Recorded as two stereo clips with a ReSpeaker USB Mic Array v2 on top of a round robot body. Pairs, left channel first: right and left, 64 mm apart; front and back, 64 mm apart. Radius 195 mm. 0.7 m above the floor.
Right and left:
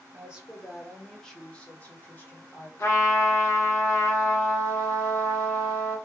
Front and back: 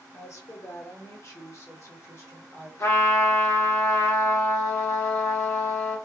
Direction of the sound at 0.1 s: 25° left.